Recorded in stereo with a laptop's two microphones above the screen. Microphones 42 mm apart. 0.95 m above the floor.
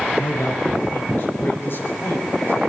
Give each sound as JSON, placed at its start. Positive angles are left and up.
{"t": 0.2, "sound": "a man speaking", "side_deg": 60, "distance_m": 5.5}